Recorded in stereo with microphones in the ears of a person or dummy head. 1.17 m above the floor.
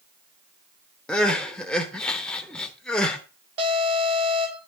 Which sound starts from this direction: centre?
Crying, at 1.1 s.